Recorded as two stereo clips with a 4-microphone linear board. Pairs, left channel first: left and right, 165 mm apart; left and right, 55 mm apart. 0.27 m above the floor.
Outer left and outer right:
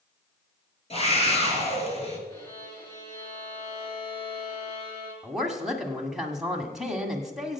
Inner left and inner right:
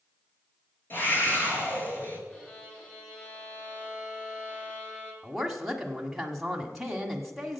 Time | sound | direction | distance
0.9 | a scream | 40° left (ahead or behind) | 4.5 m
2.3 | a violin | 20° left (ahead or behind) | 4.5 m
5.2 | a woman speaking | centre (ahead or behind) | 1.6 m